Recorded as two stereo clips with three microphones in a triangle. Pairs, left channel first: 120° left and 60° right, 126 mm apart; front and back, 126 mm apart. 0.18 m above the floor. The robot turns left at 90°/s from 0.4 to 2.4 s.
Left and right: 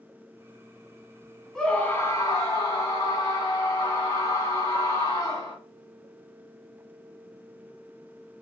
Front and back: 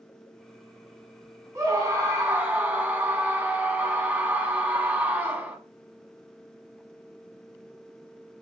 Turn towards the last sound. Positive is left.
turn(degrees=120)